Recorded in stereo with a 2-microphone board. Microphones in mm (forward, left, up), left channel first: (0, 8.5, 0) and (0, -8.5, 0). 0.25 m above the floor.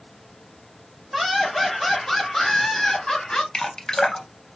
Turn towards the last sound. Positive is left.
turn(degrees=45)  # may be behind; listen again after turning